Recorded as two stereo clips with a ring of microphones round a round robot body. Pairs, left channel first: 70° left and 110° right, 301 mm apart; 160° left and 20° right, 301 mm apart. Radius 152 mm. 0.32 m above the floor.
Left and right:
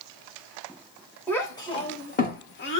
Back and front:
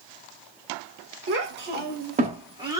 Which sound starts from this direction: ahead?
A child speaking, at 1.3 s.